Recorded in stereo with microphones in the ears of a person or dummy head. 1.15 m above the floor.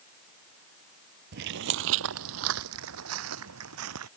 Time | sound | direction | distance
1.3 | footsteps | 45° right (ahead or behind) | ?